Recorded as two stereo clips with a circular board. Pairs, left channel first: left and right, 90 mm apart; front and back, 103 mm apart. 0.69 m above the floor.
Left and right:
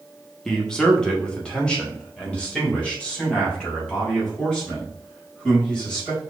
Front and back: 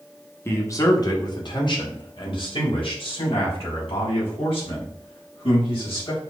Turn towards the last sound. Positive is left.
turn(degrees=15)